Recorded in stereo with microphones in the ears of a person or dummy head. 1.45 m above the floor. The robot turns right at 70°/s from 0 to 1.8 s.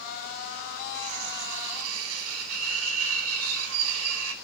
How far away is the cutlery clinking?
About 2.5 m.